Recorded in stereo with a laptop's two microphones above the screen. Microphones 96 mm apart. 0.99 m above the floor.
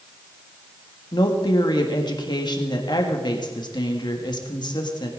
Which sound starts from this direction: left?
A woman speaking, at 1.1 s.